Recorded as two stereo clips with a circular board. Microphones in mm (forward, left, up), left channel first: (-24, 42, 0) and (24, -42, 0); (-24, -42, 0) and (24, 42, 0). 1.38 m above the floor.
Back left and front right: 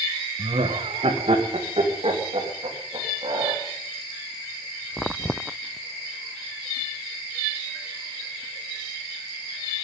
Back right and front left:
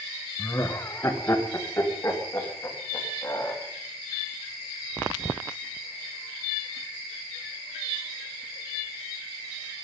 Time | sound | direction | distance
0.4 | laughter | 60° right | 1.2 m